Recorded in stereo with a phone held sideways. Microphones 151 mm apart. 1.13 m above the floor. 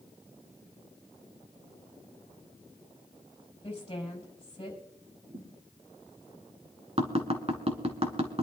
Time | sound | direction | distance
3.6 | a woman speaking | 35° left (ahead or behind) | 6 m
5.3 | a thud | 55° right (ahead or behind) | 5.5 m
7.0 | tapping | 45° right (ahead or behind) | 1.8 m